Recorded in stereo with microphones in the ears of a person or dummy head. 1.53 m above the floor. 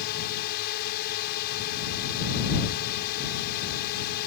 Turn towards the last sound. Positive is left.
turn(degrees=55)  # may be behind; listen again after turning